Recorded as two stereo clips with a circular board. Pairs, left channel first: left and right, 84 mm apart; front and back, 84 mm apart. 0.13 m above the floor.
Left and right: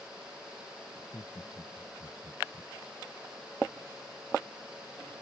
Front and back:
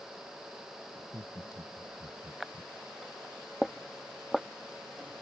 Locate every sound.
0.9 s laughter: 115° left